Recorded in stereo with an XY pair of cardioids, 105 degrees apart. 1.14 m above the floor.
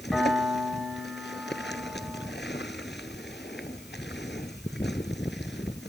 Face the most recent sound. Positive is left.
turn(degrees=10)